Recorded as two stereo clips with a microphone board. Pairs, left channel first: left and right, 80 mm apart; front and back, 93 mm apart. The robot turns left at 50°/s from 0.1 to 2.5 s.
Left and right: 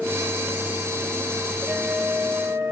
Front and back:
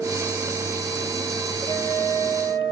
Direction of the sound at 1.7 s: Straight ahead.